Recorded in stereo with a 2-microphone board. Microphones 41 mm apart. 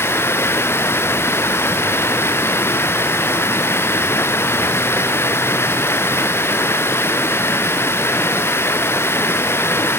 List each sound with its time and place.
0.0 s running water: 75° left (ahead or behind), 1.7 m